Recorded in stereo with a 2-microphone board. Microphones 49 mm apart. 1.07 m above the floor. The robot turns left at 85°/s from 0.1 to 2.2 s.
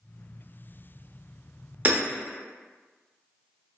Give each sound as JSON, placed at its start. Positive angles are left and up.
{"t": 1.9, "sound": "hammering", "side_deg": -35, "distance_m": 0.5}